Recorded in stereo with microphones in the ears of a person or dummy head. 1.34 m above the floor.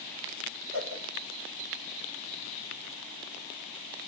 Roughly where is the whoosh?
Right.